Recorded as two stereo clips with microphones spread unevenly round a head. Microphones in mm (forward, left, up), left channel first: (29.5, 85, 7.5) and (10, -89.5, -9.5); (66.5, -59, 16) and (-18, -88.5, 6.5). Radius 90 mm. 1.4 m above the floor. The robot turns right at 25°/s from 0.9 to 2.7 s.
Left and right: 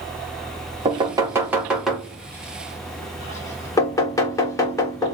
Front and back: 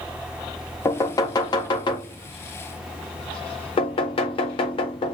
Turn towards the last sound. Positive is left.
turn(degrees=15)